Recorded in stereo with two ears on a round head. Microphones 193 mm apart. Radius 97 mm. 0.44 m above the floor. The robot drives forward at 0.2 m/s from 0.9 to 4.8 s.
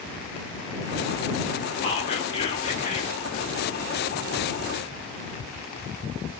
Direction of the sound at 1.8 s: 30° left (ahead or behind).